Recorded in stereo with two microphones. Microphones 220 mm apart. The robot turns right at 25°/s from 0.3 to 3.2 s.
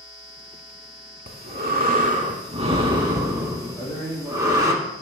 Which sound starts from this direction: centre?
A man speaking, at 3.7 s.